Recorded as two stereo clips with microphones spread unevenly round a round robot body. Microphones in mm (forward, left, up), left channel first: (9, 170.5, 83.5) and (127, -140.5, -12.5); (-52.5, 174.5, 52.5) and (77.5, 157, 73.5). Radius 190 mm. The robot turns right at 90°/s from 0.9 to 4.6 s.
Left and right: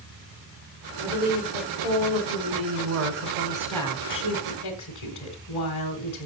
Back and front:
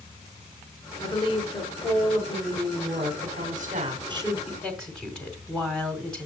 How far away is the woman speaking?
About 1.9 m.